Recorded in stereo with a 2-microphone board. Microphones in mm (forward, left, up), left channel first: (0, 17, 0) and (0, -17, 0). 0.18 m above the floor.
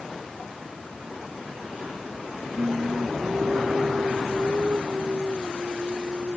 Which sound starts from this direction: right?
Singing, at 2.6 s.